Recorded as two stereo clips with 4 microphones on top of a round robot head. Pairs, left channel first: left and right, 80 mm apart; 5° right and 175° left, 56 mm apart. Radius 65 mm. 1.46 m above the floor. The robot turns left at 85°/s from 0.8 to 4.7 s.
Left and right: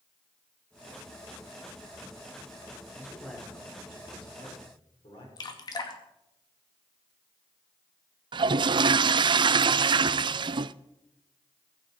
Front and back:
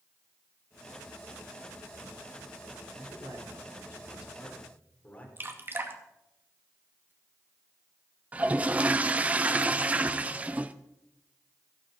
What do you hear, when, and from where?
2.9 s a man speaking: 150° right, 5 m; by 5.3 s 60° left, 5 m
5.4 s dripping: 125° left, 2 m
8.3 s a toilet flushing: 115° right, 0.5 m